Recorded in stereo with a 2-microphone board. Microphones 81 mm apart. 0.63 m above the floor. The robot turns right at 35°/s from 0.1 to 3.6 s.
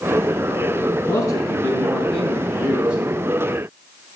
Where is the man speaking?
130° left, 6.5 m; by 3.0 s 160° right, 6.5 m.